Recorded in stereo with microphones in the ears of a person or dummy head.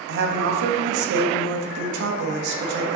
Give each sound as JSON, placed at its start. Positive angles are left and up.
{"t": 0.1, "sound": "a woman speaking", "side_deg": -65, "distance_m": 1.2}